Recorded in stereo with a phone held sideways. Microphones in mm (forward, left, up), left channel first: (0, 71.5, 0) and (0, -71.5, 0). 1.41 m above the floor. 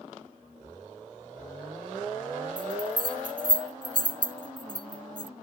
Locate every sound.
2.6 s a bell: 80° right